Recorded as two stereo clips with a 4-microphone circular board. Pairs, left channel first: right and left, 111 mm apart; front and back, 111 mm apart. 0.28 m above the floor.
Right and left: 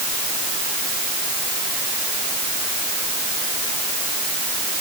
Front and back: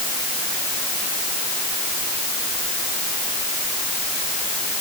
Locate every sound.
Only background noise.